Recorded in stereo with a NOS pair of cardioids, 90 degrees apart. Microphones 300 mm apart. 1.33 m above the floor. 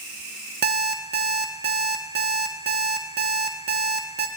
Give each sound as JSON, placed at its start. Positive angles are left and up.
{"t": 0.6, "sound": "an alarm clock", "azimuth_deg": -35, "distance_m": 1.5}